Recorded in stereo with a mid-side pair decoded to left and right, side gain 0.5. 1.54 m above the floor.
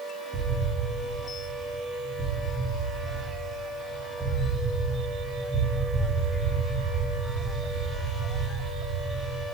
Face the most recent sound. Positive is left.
turn(degrees=-25)